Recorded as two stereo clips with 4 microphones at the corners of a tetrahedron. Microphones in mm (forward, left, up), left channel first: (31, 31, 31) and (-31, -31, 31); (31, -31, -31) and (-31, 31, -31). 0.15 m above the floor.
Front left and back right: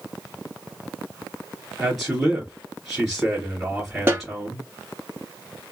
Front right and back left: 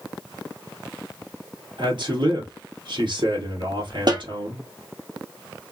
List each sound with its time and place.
1.8 s a man speaking: 140° left, 2.5 m
4.1 s a snare drum: 160° left, 1.7 m